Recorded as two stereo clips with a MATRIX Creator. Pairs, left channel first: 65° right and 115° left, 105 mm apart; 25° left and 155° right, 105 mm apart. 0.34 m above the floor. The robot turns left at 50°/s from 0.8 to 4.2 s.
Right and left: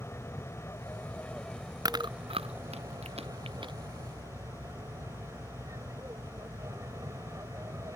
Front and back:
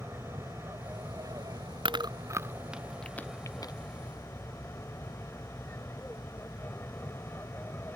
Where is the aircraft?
110° right; by 8.0 s 80° left.